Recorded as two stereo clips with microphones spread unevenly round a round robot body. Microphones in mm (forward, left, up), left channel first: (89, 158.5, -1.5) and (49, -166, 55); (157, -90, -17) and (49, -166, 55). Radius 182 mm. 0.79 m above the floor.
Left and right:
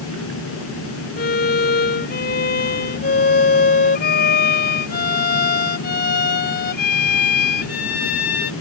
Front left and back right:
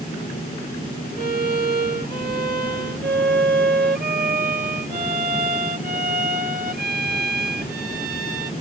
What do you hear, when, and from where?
1.2 s a violin: 150° left